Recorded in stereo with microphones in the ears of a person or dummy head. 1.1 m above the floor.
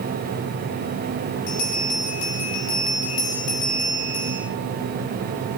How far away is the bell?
About 4 m.